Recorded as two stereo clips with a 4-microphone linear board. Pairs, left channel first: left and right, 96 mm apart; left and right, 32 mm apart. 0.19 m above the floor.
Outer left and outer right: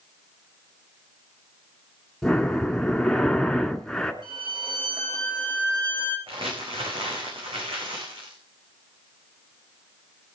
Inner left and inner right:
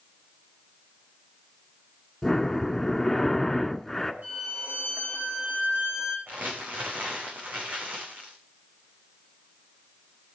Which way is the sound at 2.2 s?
5° left (ahead or behind).